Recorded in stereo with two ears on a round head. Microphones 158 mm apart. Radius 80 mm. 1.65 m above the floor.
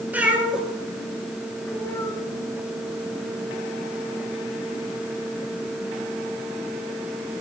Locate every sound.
0.1 s a cat meowing: 10° right (ahead or behind), 2.5 m; by 2.2 s 20° left (ahead or behind), 1.7 m